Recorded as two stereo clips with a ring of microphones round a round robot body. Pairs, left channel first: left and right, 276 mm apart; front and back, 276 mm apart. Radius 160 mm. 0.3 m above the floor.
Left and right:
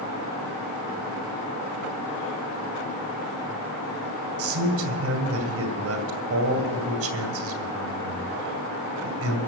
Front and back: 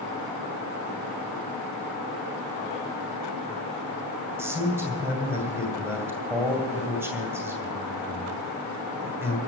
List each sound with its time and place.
4.4 s a man speaking: 100° right, 2 m